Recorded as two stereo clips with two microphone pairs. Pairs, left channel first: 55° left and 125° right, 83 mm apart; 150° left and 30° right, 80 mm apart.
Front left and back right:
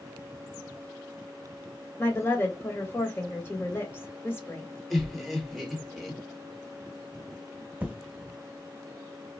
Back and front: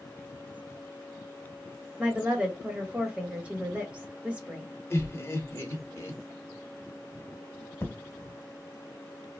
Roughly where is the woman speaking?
Ahead left.